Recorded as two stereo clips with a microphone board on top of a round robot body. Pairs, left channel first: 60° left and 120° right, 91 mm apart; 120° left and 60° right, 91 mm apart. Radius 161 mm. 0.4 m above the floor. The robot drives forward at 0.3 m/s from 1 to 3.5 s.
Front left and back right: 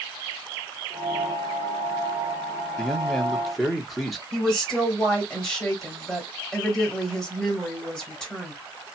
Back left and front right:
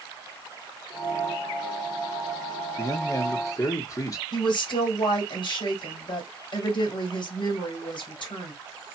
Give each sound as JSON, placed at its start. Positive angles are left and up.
{"t": 2.8, "sound": "a man speaking", "azimuth_deg": 140, "distance_m": 1.2}
{"t": 4.3, "sound": "a woman speaking", "azimuth_deg": 140, "distance_m": 2.0}